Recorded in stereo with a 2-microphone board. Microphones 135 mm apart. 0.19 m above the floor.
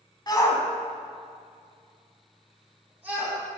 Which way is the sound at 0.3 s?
30° left (ahead or behind).